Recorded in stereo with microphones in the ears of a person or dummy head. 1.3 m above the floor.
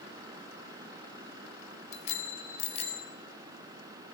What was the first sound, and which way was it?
A bicycle bell, 40° left (ahead or behind).